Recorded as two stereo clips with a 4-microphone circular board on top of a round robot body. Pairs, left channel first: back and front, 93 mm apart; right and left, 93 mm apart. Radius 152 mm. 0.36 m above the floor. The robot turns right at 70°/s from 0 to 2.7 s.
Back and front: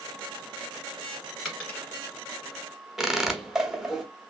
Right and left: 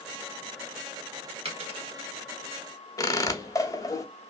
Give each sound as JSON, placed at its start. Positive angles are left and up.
{"t": 1.4, "sound": "a dropped coin", "azimuth_deg": 85, "distance_m": 1.6}
{"t": 3.0, "sound": "a squeak", "azimuth_deg": -80, "distance_m": 0.8}